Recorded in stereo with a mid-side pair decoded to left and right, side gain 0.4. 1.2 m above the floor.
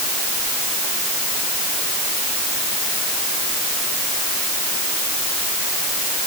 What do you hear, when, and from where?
Only background noise.